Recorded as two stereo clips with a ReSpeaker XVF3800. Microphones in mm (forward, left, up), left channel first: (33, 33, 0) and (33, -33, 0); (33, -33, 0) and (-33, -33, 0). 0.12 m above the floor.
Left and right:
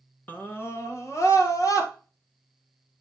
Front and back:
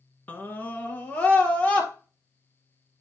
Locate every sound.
0.3 s a scream: 50° left, 1.4 m; by 1.9 s 65° left, 2.5 m